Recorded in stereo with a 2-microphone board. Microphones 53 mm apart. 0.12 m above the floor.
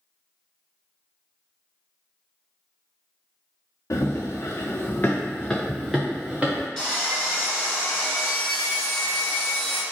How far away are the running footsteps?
About 1.1 m.